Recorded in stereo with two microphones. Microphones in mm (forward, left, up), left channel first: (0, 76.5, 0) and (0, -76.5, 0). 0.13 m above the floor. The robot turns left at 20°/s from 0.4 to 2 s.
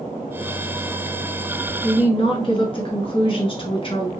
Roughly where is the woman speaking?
Left.